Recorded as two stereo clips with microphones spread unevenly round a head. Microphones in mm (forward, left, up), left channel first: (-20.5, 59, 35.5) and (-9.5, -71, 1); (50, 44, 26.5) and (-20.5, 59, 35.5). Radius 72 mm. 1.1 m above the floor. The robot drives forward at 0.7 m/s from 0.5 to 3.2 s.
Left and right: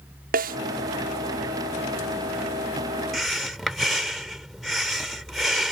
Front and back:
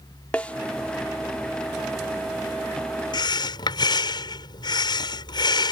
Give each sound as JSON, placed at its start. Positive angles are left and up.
{"t": 0.3, "sound": "a snare drum", "azimuth_deg": -95}
{"t": 3.1, "sound": "breathing", "azimuth_deg": 5}